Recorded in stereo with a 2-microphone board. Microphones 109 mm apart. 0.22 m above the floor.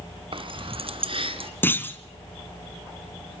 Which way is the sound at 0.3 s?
50° right (ahead or behind).